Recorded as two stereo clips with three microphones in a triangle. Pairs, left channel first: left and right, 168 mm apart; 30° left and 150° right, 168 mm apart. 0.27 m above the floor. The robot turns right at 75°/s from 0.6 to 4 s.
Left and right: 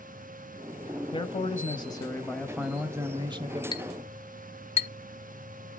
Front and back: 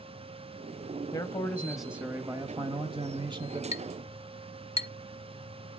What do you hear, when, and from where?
1.1 s a man speaking: 75° left, 1.2 m; by 3.6 s 100° right, 1.2 m
3.7 s a clink: 40° left, 0.6 m; by 4.9 s 65° left, 0.6 m